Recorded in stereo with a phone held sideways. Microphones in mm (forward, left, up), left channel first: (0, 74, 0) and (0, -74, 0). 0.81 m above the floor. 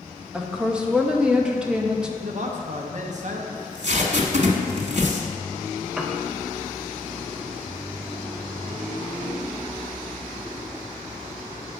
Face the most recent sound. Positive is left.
turn(degrees=-5)  # may be behind; listen again after turning